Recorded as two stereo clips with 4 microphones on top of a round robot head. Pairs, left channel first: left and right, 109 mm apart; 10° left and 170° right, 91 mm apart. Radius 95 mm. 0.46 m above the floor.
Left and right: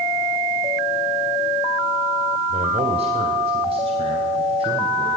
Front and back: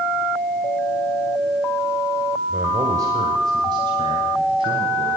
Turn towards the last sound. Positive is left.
turn(degrees=-130)